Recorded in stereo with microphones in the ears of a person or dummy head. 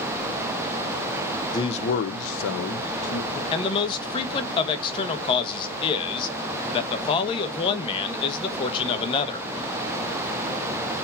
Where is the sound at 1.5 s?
25° left (ahead or behind), 0.6 m; by 3.4 s 65° left (ahead or behind), 1.5 m.